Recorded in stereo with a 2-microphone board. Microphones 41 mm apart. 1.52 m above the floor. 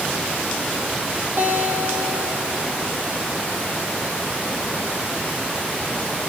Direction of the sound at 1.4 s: 80° right.